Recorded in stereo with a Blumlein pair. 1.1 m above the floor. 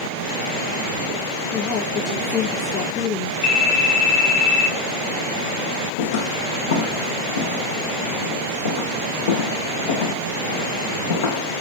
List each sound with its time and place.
1.5 s a woman speaking: 25° left, 3 m
3.4 s a phone ringing: 45° left, 3.5 m
6.0 s footsteps: 60° left, 3.5 m